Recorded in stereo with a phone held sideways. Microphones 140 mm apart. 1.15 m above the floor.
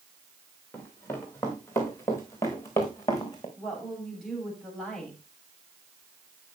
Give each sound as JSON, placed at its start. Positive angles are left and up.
{"t": 0.7, "sound": "running footsteps", "side_deg": 15, "distance_m": 6.0}
{"t": 3.6, "sound": "a woman speaking", "side_deg": 5, "distance_m": 7.0}